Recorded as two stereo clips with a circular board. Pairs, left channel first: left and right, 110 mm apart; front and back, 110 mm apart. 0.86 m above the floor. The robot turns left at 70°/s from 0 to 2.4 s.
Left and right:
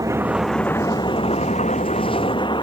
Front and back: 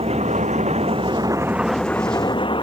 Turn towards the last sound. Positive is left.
turn(degrees=45)